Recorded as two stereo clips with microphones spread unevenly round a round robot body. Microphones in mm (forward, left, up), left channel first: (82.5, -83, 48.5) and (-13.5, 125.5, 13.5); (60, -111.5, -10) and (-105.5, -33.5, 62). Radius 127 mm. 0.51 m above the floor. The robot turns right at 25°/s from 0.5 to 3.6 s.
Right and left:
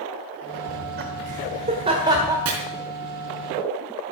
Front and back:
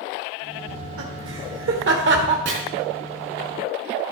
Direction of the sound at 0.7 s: 145° left.